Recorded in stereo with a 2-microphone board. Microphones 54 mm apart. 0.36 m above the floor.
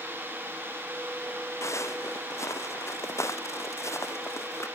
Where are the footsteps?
60° left (ahead or behind); by 4.7 s 55° left (ahead or behind).